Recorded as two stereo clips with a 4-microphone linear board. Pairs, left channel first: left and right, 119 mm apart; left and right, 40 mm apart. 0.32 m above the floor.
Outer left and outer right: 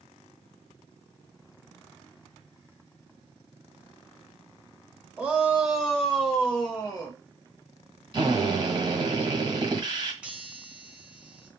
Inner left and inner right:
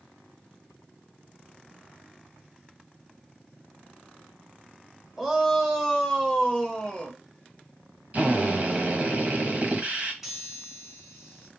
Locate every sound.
5.2 s a shout: 10° right (ahead or behind), 1.2 m; by 7.2 s 15° left (ahead or behind), 1.4 m
8.1 s a drill: 40° right (ahead or behind), 1.4 m
10.2 s a chime: 10° right (ahead or behind), 1.5 m